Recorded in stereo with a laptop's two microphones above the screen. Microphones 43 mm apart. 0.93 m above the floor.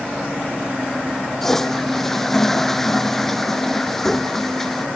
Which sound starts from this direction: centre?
A toilet flushing, at 1.4 s.